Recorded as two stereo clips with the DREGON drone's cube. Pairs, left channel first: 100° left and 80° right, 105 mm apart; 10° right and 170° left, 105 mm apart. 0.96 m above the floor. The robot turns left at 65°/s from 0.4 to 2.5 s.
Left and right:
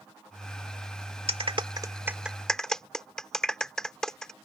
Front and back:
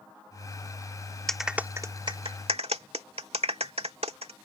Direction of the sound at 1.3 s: 95° right.